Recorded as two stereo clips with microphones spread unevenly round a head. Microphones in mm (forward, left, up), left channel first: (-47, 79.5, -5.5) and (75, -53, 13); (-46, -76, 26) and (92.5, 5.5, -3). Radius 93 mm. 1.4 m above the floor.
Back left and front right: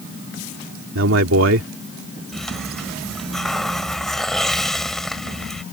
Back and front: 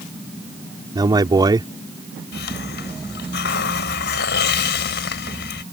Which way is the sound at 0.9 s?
40° right.